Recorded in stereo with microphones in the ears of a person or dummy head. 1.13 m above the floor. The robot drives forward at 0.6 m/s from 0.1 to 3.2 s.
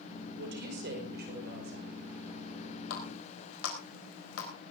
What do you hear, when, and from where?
0.4 s a woman speaking: 50° right (ahead or behind), 4.5 m; by 1.9 s 45° right (ahead or behind), 5 m
2.9 s a running tap: 85° left, 4 m; by 4.5 s 80° left, 4 m